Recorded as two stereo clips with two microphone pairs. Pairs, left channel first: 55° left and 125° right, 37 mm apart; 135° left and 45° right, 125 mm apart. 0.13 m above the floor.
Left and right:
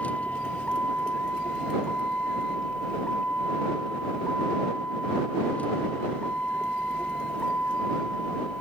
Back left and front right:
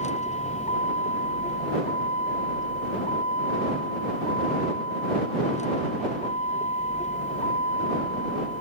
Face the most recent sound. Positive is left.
turn(degrees=110)